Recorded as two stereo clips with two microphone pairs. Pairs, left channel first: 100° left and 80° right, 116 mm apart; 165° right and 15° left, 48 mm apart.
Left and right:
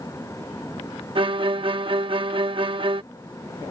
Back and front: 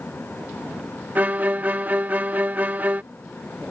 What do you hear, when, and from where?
1.1 s a violin: 35° right